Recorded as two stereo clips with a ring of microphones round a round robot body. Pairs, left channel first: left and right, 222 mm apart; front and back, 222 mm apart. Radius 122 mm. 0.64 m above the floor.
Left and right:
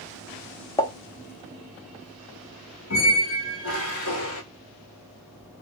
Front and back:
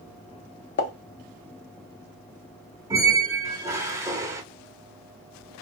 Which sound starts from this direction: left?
A squeak, at 2.9 s.